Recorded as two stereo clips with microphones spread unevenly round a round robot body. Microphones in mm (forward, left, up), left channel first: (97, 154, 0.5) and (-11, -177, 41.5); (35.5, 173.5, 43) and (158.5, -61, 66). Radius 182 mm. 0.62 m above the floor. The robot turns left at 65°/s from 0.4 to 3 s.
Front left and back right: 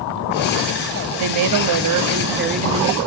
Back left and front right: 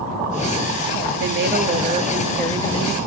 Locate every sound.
1.2 s a woman speaking: 85° right, 0.8 m; by 3.0 s 160° left, 0.8 m